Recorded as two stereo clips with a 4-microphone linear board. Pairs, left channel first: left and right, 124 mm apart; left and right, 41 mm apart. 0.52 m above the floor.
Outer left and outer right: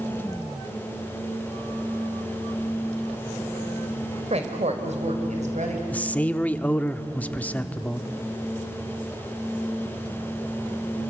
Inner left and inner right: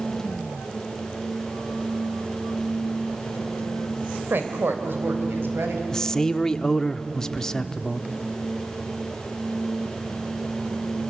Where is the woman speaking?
60° right (ahead or behind), 2.5 m; by 5.8 s 70° right (ahead or behind), 4 m.